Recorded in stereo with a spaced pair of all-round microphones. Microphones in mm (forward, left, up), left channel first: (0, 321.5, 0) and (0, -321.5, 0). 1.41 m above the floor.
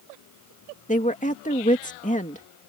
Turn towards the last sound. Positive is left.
turn(degrees=10)  # may be behind; listen again after turning